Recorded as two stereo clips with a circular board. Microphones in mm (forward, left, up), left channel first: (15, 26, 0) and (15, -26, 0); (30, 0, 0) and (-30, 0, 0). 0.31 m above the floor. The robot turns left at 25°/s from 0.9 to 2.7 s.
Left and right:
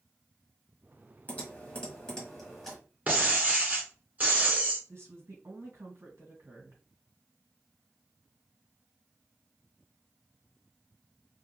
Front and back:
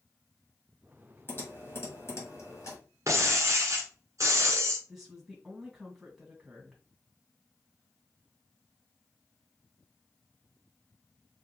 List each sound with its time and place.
1.3 s typing on a keyboard: 40° left, 1.8 m; by 2.8 s 5° left, 1.8 m
3.1 s breaking glass: 145° right, 1.4 m
4.9 s a woman speaking: 95° right, 2 m